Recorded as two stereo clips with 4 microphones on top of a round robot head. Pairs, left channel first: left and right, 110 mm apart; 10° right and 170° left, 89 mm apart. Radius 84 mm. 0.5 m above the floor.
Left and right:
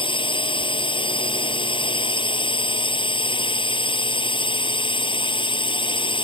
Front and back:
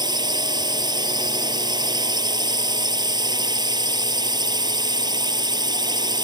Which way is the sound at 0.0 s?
130° left.